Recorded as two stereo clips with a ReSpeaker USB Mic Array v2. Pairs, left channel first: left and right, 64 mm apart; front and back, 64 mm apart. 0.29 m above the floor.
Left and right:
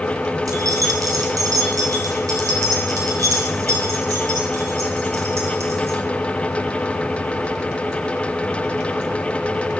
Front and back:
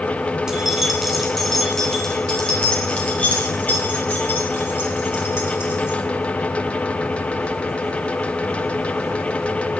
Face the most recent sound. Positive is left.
turn(degrees=-50)